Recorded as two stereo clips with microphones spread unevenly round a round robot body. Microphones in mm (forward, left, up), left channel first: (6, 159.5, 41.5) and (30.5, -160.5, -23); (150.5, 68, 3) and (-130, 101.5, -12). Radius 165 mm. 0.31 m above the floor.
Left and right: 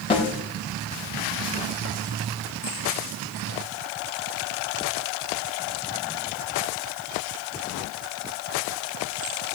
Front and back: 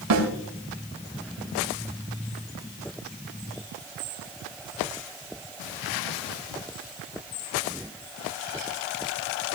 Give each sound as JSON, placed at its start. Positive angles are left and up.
{"t": 0.1, "sound": "a snare drum", "azimuth_deg": 170, "distance_m": 3.5}